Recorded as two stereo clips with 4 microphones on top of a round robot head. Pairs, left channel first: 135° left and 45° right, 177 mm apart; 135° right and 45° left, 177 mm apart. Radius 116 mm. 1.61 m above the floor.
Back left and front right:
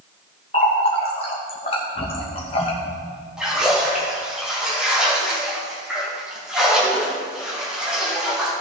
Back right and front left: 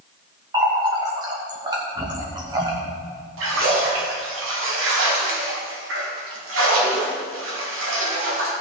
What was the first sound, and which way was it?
A running tap, 100° left.